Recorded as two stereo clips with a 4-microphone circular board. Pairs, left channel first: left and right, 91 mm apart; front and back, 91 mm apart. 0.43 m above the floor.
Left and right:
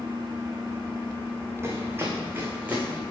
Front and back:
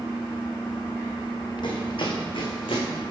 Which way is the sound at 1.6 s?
25° right.